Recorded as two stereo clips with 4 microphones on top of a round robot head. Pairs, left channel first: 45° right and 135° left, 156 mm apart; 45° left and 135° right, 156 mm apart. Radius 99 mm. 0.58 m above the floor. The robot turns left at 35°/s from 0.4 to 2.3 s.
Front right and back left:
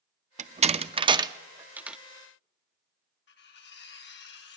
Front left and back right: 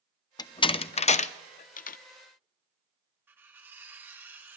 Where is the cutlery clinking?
55° right, 1.7 m.